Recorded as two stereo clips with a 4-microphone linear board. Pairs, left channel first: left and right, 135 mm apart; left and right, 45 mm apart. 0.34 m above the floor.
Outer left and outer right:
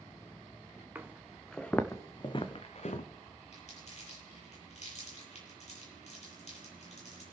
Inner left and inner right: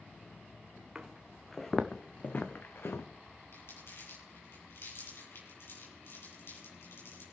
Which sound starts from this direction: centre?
Footsteps, at 0.9 s.